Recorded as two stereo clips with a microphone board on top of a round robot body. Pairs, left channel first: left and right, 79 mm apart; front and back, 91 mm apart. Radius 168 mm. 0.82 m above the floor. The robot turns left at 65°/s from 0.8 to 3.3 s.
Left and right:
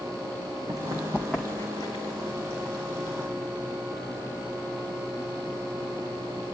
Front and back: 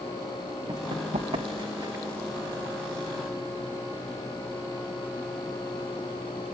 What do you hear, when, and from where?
0.7 s running footsteps: 135° right, 2.5 m; by 2.0 s 115° left, 3 m